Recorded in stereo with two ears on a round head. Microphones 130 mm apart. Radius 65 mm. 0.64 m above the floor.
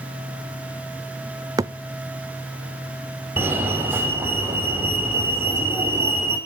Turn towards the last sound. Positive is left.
turn(degrees=-15)  # may be behind; listen again after turning